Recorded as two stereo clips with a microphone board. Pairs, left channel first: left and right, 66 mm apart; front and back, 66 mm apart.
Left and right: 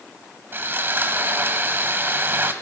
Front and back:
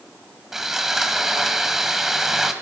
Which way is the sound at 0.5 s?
100° right.